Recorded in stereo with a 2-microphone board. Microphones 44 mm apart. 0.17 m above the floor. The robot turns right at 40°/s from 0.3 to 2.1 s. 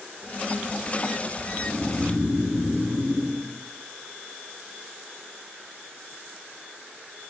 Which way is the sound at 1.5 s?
70° left (ahead or behind).